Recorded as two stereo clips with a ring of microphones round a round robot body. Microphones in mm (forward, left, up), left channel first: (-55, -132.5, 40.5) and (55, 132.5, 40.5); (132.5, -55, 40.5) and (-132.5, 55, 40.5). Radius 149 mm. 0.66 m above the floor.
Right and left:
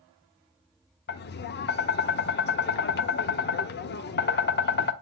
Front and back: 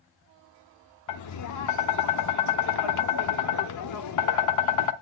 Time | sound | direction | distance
1.1 | tapping | 55° right | 0.7 m